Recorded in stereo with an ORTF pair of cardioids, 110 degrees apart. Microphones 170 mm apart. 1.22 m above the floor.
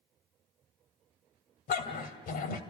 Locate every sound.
1.7 s a dog barking: 60° left, 2.5 m